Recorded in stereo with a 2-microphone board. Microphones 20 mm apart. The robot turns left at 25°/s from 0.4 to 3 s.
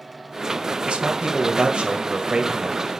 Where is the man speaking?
70° right, 1.7 m; by 2.9 s 120° right, 1.7 m.